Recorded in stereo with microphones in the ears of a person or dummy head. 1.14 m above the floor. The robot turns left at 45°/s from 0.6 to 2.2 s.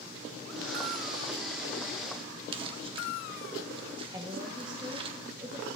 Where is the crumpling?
25° right (ahead or behind), 0.9 m.